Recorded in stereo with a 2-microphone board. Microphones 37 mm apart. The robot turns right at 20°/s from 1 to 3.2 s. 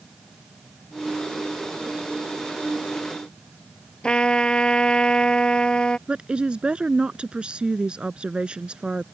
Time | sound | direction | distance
4.0 | a trumpet | 20° left (ahead or behind) | ?
6.1 | a woman speaking | 25° right (ahead or behind) | ?